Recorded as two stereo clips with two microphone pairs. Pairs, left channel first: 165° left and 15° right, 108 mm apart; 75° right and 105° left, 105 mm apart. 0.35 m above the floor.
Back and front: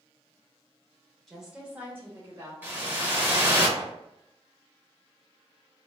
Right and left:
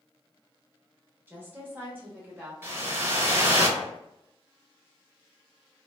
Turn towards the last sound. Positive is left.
turn(degrees=50)